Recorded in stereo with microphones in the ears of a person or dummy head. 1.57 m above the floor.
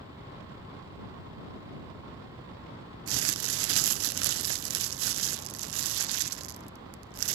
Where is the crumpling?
70° right (ahead or behind).